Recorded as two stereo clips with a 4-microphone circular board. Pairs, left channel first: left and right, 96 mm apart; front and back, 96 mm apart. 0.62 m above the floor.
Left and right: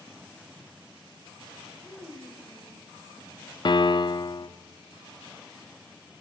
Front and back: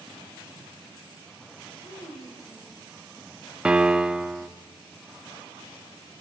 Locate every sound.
1.8 s a child speaking: 10° right, 9 m
3.6 s a piano: 100° left, 1.0 m